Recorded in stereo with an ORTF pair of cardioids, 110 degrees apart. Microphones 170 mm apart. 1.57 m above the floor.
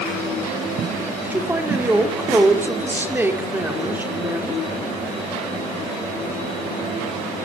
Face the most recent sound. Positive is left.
turn(degrees=-10)